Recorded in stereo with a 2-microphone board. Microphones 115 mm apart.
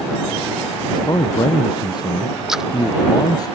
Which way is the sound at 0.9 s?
40° left (ahead or behind).